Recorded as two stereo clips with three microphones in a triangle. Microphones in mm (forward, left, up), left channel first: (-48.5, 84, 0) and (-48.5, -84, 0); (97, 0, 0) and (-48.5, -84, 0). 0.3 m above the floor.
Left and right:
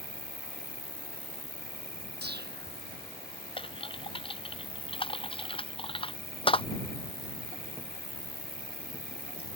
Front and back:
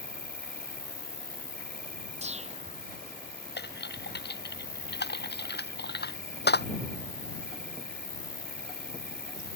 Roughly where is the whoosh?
Right.